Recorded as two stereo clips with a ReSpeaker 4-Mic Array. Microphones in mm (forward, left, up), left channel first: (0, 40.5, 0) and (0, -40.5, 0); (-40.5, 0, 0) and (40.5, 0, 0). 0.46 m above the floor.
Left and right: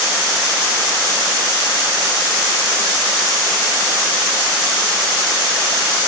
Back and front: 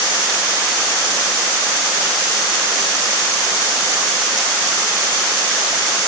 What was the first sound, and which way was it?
Only background noise.